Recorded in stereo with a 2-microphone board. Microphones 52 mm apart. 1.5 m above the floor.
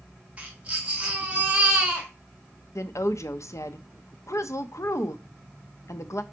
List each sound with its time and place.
0.4 s a baby crying: 25° right (ahead or behind), 1.9 m
2.8 s a woman speaking: 70° left (ahead or behind), 0.8 m